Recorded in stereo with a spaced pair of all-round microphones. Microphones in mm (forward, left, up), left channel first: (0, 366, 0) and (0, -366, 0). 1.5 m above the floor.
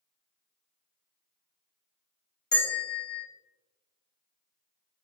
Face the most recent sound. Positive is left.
turn(degrees=15)  # may be behind; listen again after turning